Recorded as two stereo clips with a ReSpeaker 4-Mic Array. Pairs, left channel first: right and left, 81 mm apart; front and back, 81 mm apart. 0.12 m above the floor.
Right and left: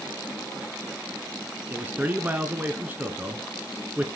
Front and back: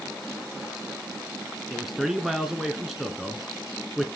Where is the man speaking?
100° left, 1.1 m.